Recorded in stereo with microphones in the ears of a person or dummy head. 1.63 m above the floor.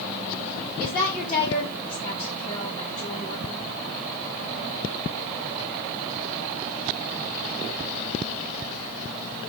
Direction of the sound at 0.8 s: 20° left (ahead or behind).